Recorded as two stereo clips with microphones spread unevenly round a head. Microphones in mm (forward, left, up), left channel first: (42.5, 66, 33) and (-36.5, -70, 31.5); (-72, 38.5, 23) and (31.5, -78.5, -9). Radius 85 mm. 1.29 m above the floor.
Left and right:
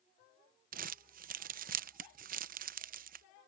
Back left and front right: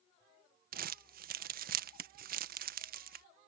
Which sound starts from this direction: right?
Crumpling, at 0.7 s.